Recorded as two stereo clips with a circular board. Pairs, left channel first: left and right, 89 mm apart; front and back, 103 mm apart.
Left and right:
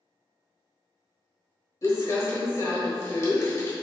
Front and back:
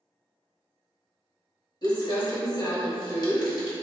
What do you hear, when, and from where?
1.8 s crumpling: 40° left, 1.2 m